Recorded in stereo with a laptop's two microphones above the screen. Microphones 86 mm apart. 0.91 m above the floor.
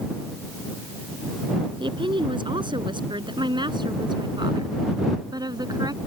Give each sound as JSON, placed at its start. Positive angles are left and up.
{"t": 1.8, "sound": "a woman speaking", "side_deg": -75}